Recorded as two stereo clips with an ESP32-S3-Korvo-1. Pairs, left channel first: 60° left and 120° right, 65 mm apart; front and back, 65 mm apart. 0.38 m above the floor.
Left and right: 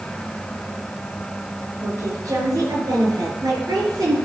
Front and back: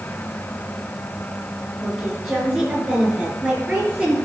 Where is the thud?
No thud in this recording.